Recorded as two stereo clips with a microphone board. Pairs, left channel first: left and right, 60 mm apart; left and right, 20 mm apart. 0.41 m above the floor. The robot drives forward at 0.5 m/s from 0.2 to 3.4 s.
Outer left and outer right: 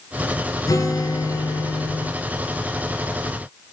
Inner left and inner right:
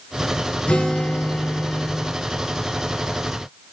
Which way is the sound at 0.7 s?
75° left (ahead or behind).